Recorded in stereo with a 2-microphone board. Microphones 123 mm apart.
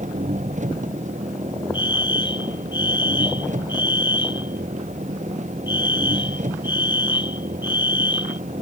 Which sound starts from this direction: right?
An engine running, at 0.0 s.